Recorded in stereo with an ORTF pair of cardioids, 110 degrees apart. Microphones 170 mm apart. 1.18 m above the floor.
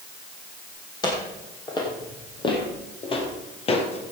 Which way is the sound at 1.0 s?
25° left.